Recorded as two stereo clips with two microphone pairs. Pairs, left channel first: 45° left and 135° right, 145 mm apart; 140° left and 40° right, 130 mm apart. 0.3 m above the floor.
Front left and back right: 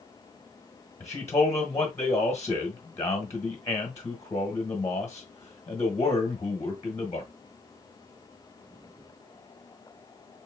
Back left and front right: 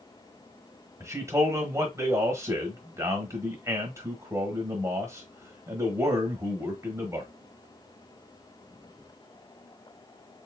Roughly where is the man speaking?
Ahead.